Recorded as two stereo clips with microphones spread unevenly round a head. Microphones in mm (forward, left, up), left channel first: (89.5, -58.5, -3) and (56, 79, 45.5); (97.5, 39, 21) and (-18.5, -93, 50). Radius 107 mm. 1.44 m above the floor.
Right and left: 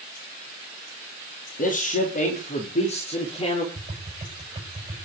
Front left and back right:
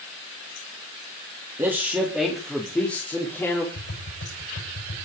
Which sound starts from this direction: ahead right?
A man speaking, at 1.6 s.